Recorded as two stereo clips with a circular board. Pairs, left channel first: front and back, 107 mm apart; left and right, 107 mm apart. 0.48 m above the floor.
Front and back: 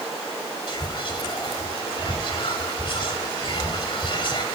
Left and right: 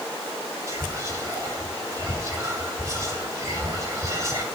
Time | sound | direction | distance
0.7 | whispering | 30° right | 2 m